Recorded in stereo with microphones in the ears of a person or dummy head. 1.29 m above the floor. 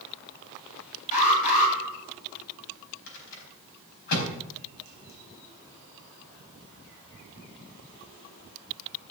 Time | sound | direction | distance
1.1 | an alarm | 40° left (ahead or behind) | 8.5 m
3.1 | a rattle | 55° left (ahead or behind) | 4.5 m